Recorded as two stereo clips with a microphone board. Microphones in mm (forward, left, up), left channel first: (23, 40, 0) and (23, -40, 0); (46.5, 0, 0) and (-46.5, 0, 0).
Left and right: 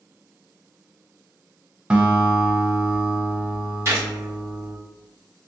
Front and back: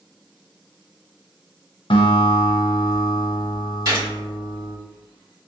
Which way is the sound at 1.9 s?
15° right.